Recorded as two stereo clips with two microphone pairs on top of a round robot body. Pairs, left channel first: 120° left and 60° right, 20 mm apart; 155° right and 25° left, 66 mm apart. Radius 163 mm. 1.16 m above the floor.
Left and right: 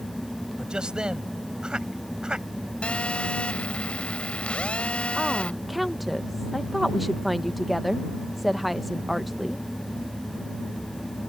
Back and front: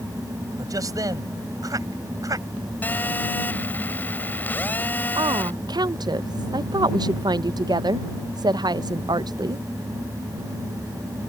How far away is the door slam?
No door slam in this recording.